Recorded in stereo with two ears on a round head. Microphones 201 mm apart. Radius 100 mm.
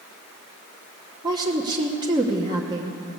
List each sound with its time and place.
1.2 s a woman speaking: 20° right (ahead or behind), 1.0 m